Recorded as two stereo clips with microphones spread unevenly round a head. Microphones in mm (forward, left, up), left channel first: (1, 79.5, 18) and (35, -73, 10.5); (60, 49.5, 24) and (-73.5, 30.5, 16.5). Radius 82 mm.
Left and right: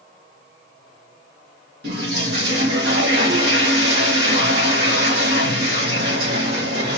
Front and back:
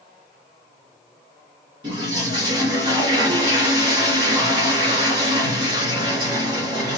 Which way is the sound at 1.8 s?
110° right.